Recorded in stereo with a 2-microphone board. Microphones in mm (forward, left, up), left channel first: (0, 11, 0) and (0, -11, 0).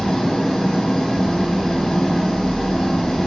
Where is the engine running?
35° left (ahead or behind), 3 m.